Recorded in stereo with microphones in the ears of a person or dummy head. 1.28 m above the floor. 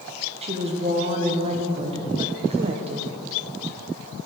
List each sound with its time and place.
0.4 s a woman speaking: 30° right (ahead or behind), 0.8 m